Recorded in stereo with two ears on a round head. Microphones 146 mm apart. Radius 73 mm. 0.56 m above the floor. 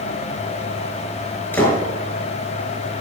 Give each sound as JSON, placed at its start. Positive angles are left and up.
{"t": 1.5, "sound": "a door slam", "side_deg": 15, "distance_m": 5.5}